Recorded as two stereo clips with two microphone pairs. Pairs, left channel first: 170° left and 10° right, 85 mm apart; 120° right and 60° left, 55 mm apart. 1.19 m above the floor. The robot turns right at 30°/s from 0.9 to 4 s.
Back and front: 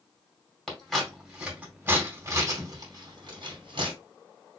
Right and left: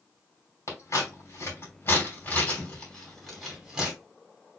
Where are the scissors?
105° right, 2.5 m; by 3.9 s 15° right, 2.5 m.